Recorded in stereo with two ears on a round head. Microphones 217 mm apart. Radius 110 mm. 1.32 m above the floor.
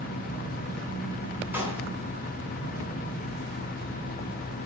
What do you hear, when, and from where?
1.5 s a clap: 10° right (ahead or behind), 9.5 m